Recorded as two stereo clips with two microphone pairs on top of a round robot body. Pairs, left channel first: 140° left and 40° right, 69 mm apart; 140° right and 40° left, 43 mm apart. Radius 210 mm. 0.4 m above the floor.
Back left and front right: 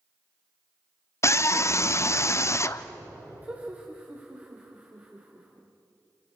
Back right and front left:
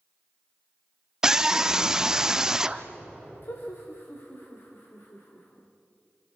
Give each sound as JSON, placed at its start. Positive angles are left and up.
{"t": 1.2, "sound": "a scream", "azimuth_deg": 110, "distance_m": 1.2}
{"t": 3.4, "sound": "laughter", "azimuth_deg": -110, "distance_m": 3.0}